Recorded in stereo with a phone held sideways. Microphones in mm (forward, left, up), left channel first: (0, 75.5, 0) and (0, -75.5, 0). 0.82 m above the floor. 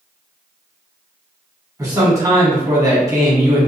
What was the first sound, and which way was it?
A man speaking, 25° right (ahead or behind).